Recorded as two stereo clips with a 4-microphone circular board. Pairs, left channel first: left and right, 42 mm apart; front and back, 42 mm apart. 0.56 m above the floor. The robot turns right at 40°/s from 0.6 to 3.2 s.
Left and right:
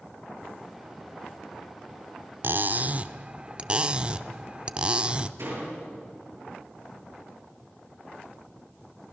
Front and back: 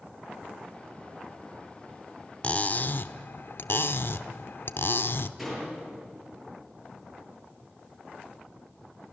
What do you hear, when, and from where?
2.4 s cutlery clinking: 55° right, 0.5 m; by 5.3 s 25° right, 0.5 m
5.4 s a door slam: 90° right, 8 m